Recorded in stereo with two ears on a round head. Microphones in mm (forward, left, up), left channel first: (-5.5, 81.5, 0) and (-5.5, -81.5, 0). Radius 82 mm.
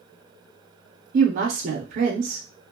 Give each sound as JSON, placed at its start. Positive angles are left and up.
{"t": 1.1, "sound": "a woman speaking", "side_deg": -45, "distance_m": 0.6}